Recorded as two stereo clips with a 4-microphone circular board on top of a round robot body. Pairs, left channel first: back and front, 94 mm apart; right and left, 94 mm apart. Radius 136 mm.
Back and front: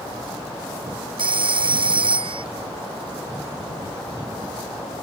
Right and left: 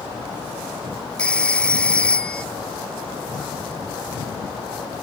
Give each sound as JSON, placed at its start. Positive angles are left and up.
{"t": 1.2, "sound": "a phone ringing", "azimuth_deg": -10}